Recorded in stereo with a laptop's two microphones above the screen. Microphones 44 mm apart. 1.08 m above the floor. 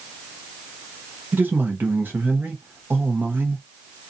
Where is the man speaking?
50° right (ahead or behind), 0.8 m.